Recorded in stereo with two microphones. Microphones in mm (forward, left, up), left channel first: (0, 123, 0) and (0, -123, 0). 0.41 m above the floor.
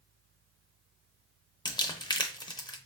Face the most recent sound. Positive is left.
turn(degrees=15)  # may be behind; listen again after turning